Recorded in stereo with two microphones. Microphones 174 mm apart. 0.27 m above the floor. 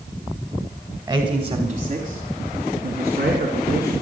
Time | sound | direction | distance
1.1 | a man speaking | 25° right (ahead or behind) | 1.4 m